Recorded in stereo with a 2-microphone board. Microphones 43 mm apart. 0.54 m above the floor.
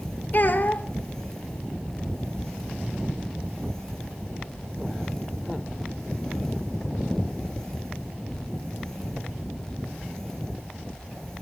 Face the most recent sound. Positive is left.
turn(degrees=45)  # may be behind; listen again after turning